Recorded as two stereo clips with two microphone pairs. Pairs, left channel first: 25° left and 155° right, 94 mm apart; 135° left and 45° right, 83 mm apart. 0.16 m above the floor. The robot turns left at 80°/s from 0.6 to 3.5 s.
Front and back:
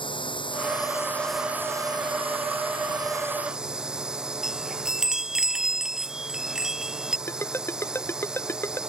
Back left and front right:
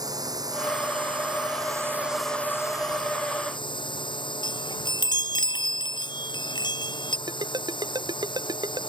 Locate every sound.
0.0 s a drone: 5° right; by 8.9 s 125° left
4.4 s a chime: 120° left
7.3 s a ringtone: 35° right